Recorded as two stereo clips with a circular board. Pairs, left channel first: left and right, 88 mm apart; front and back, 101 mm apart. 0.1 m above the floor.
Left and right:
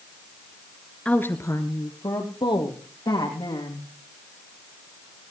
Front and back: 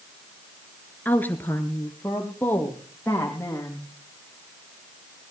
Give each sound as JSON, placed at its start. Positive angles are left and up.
{"t": 1.1, "sound": "a woman speaking", "azimuth_deg": 40, "distance_m": 1.1}